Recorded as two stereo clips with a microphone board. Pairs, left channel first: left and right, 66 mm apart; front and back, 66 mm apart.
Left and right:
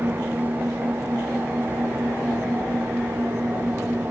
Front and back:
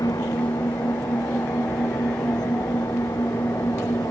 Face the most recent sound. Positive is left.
turn(degrees=-30)